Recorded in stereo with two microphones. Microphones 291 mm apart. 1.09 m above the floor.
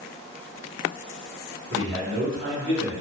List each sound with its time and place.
1.7 s a man speaking: 40° right (ahead or behind), 1.2 m; by 2.9 s 45° right (ahead or behind), 2 m